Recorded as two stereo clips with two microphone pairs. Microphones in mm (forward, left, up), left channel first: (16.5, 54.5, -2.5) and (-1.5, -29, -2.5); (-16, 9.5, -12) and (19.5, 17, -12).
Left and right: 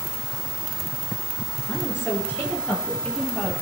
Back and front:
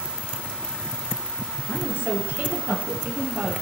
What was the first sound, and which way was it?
A woman speaking, 25° left.